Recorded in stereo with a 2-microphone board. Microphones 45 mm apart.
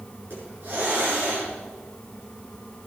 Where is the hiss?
50° right (ahead or behind), 6.5 m.